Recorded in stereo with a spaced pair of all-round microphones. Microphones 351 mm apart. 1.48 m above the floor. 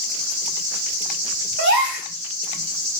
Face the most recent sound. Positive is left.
turn(degrees=-35)  # may be behind; listen again after turning